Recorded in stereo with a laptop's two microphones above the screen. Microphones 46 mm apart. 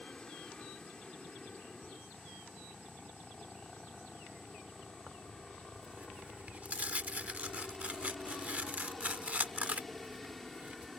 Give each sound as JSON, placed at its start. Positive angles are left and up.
{"t": 0.0, "sound": "a helicopter", "side_deg": 15}
{"t": 5.1, "sound": "tearing paper", "side_deg": -35}